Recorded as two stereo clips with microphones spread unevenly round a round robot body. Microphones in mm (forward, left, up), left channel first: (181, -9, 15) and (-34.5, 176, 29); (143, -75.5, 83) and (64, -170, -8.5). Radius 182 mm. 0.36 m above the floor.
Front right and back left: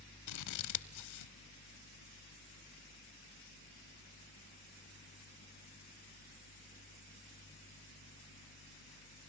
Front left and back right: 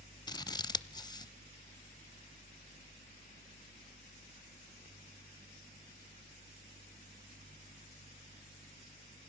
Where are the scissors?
20° right, 0.8 m.